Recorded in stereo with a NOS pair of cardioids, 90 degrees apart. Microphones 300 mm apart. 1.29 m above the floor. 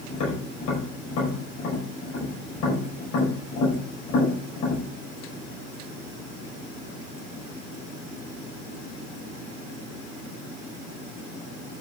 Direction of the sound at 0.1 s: 70° left.